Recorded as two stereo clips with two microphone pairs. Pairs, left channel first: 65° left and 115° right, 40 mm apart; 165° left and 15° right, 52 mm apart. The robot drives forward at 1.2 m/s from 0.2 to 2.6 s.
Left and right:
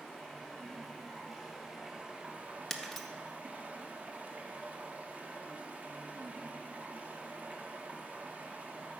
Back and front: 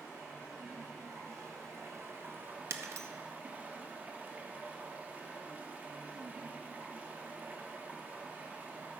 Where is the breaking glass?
15° right, 0.7 m.